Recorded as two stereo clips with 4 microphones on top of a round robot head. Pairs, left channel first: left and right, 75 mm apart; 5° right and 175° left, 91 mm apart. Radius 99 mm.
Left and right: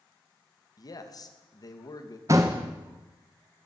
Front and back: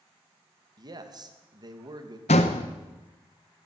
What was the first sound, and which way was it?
A man speaking, 130° left.